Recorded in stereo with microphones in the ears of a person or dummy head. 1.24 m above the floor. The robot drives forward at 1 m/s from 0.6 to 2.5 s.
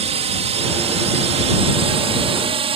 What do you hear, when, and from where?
0.0 s a drone: 30° right (ahead or behind)